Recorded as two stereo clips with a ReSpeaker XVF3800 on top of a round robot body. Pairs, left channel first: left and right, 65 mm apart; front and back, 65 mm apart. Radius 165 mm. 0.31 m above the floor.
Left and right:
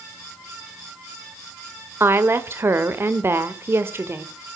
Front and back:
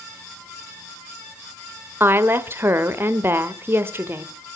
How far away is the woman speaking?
About 1.8 m.